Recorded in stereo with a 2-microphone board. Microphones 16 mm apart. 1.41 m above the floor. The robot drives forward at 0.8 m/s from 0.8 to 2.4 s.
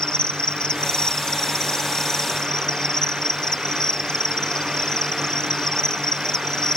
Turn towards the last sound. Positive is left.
turn(degrees=45)  # may be behind; listen again after turning